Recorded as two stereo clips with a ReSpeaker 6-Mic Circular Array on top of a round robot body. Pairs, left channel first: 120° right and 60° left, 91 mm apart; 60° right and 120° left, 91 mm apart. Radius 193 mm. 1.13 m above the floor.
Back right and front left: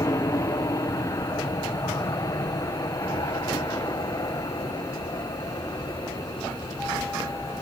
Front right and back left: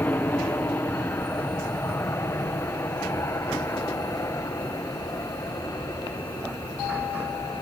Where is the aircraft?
115° right; by 7.6 s 95° right.